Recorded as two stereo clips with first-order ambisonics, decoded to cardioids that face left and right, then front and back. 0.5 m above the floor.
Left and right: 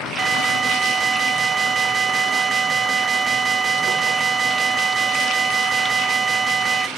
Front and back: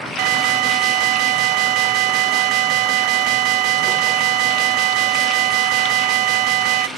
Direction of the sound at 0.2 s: 160° right.